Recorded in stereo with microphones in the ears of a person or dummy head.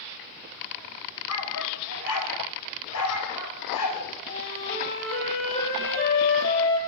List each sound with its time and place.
1.3 s a dog barking: 75° left (ahead or behind), 4 m
4.3 s a flute: 50° left (ahead or behind), 8.5 m